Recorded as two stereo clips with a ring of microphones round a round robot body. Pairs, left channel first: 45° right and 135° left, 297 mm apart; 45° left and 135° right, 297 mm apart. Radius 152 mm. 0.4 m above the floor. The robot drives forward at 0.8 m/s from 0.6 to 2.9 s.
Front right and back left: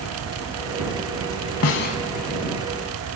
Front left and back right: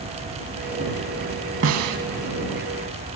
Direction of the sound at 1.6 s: 85° right.